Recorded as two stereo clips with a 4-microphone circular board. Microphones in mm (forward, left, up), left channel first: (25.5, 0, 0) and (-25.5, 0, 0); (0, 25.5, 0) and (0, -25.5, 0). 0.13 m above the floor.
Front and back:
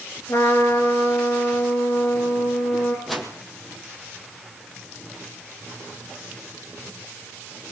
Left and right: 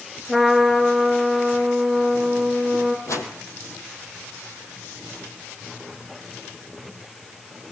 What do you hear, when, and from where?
0.3 s a trumpet: 5° left, 5 m
3.1 s a whoosh: 90° left, 4 m